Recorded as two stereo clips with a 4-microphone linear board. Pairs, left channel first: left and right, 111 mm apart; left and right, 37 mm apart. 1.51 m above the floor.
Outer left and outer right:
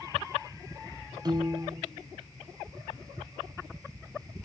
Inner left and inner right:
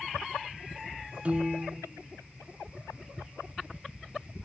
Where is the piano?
35° right (ahead or behind), 1.0 m.